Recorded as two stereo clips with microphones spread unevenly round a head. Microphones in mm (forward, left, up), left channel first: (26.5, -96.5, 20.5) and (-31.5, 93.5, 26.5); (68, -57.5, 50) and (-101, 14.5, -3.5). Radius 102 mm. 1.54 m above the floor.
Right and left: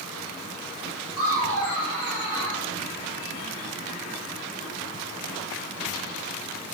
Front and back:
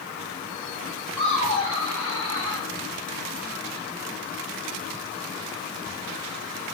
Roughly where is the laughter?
Behind left.